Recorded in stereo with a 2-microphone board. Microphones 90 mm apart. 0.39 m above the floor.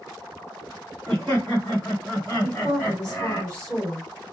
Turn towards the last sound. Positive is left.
turn(degrees=10)  # may be behind; listen again after turning